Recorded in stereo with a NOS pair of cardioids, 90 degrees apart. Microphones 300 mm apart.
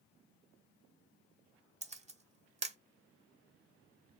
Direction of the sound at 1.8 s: 20° right.